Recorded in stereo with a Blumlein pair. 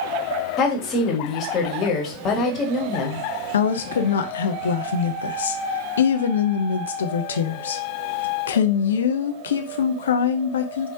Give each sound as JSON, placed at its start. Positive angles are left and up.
{"t": 0.6, "sound": "a woman speaking", "azimuth_deg": 30, "distance_m": 1.3}
{"t": 3.5, "sound": "a woman speaking", "azimuth_deg": 65, "distance_m": 0.7}